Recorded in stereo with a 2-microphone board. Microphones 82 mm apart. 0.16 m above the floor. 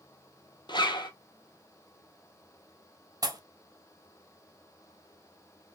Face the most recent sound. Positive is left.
turn(degrees=-45)  # may be behind; listen again after turning